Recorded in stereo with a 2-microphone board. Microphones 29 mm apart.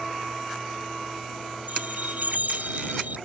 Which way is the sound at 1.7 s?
75° right (ahead or behind).